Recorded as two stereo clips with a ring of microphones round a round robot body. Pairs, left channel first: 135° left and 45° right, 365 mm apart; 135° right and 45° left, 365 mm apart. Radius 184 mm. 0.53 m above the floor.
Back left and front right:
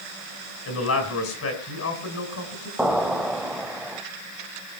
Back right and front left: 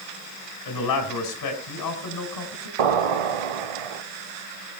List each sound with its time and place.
0.7 s a man speaking: 175° right, 4.5 m
2.8 s an explosion: 45° left, 1.4 m